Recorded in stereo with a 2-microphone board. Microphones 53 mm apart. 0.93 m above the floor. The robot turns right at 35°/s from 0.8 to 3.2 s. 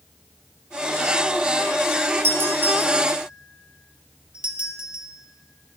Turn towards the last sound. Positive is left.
turn(degrees=-20)  # may be behind; listen again after turning